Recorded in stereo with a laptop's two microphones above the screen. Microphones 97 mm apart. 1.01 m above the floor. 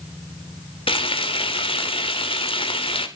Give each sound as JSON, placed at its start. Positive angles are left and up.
{"t": 0.9, "sound": "frying", "side_deg": 75, "distance_m": 3.0}